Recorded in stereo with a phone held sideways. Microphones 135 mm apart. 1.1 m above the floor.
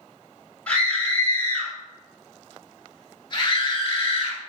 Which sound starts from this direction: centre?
A scream, at 0.7 s.